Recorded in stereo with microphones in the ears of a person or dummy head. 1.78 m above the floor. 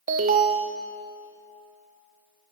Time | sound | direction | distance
0.1 | an alarm | 50° right (ahead or behind) | 1.4 m